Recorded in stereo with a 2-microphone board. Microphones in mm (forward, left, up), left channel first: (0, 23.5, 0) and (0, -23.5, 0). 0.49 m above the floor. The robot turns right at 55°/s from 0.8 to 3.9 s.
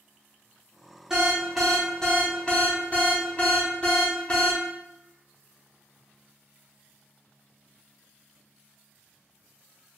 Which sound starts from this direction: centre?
An alarm, at 1.1 s.